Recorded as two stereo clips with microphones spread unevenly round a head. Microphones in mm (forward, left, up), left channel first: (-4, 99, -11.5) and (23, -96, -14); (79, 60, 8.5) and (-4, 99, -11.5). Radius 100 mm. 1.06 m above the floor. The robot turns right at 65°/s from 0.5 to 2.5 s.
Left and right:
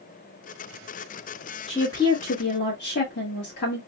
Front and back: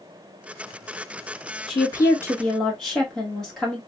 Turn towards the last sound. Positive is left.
turn(degrees=60)